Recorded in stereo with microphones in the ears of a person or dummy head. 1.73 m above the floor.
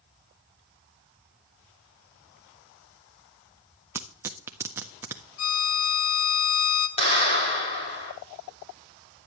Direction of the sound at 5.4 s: 65° left (ahead or behind).